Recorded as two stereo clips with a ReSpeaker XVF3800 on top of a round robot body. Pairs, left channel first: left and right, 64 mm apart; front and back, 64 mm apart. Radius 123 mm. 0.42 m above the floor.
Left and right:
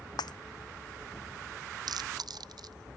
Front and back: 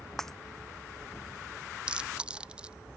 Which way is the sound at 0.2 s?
85° left.